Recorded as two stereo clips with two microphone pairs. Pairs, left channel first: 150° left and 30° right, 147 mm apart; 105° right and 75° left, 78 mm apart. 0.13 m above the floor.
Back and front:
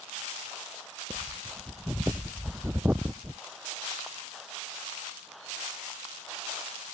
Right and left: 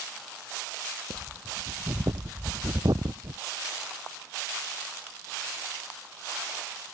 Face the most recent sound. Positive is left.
turn(degrees=50)